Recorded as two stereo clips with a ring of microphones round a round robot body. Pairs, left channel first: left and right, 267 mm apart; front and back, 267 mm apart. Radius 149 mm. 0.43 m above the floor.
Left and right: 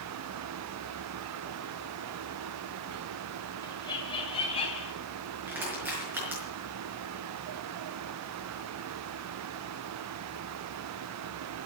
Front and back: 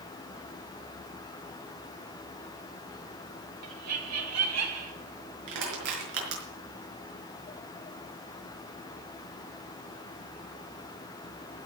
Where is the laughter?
165° left, 3.5 m; by 4.9 s 160° left, 4 m.